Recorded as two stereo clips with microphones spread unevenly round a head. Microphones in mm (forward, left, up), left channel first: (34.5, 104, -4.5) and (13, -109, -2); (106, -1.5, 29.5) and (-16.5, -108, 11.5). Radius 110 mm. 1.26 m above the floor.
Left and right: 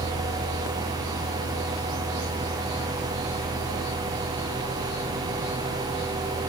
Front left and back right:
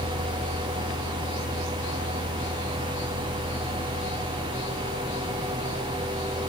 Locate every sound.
Only background noise.